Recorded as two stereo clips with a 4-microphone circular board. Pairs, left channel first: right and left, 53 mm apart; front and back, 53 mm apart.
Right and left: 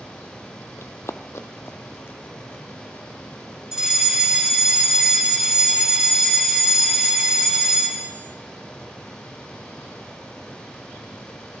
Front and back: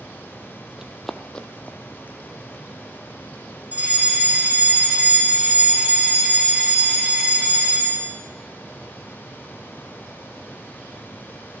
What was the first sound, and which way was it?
Running footsteps, 105° right.